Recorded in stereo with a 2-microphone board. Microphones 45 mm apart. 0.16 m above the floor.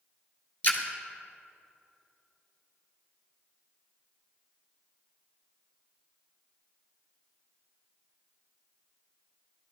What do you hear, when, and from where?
0.6 s a splash: 40° left (ahead or behind), 1.5 m